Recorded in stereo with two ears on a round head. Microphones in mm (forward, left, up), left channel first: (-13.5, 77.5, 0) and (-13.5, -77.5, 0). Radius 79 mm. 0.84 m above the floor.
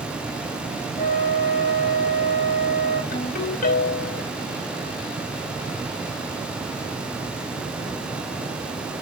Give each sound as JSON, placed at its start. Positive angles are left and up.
{"t": 1.0, "sound": "a flute", "side_deg": 30, "distance_m": 4.0}
{"t": 3.1, "sound": "a ringtone", "side_deg": 50, "distance_m": 2.5}